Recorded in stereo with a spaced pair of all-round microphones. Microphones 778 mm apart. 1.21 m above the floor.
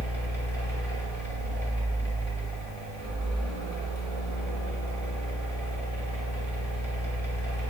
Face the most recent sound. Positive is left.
turn(degrees=-35)  # may be behind; listen again after turning